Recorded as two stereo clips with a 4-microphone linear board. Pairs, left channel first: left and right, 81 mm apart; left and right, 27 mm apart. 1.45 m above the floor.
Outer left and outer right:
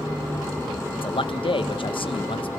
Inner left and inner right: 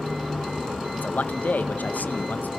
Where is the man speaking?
75° left (ahead or behind), 1.6 m.